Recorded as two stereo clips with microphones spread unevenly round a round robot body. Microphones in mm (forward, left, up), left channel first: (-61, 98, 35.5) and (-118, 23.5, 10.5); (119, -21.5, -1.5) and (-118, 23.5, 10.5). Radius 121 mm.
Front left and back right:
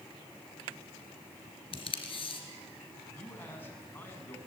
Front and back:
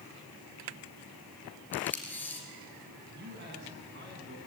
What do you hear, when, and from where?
1.7 s tape being pulled: 75° left, 3 m
3.1 s a man speaking: 120° left, 6.5 m